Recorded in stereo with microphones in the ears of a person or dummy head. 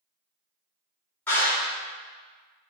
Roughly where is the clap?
Centre.